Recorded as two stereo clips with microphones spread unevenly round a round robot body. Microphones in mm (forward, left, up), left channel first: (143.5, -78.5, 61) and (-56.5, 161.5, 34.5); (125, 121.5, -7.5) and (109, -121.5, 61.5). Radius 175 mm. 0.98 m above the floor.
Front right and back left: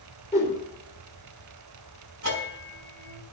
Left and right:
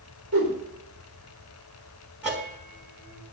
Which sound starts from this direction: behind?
A bell, at 2.2 s.